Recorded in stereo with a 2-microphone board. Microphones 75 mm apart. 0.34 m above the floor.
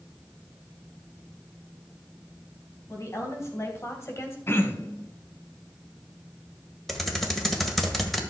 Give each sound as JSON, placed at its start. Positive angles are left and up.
{"t": 2.9, "sound": "a woman speaking", "side_deg": 40, "distance_m": 3.0}
{"t": 4.5, "sound": "throat clearing", "side_deg": 30, "distance_m": 1.0}
{"t": 6.9, "sound": "typing on a keyboard", "side_deg": 0, "distance_m": 1.5}